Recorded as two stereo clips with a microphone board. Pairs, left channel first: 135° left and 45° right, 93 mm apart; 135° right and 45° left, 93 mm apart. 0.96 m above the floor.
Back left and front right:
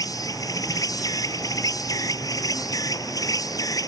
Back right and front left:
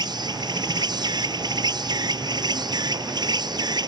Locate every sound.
0.0 s an insect: 85° left